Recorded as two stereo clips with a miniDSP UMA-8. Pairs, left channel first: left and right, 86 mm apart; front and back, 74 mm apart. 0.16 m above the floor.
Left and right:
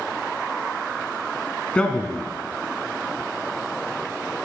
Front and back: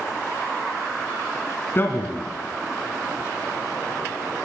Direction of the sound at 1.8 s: 25° left.